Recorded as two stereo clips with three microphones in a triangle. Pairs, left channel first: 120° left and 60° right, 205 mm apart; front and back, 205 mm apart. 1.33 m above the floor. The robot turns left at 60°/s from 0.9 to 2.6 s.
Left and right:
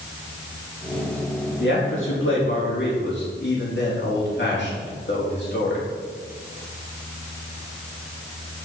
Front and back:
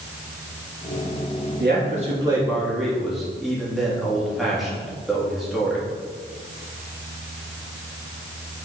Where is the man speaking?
150° left, 3 m; by 5.9 s 90° left, 3 m.